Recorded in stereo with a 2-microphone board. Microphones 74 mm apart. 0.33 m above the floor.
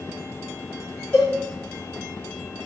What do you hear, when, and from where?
1.1 s a cowbell: 35° left (ahead or behind), 1.3 m